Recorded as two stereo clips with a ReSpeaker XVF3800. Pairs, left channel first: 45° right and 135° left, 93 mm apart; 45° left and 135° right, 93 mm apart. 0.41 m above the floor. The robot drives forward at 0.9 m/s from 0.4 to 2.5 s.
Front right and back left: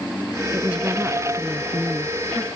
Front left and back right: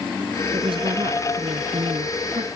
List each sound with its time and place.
0.5 s a woman speaking: 150° right; by 2.5 s 155° right